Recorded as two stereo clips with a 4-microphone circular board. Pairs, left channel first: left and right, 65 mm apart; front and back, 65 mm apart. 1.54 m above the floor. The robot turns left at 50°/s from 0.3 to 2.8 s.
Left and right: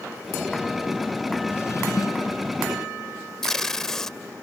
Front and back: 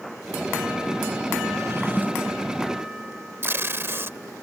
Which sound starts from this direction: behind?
Tape being pulled, at 3.4 s.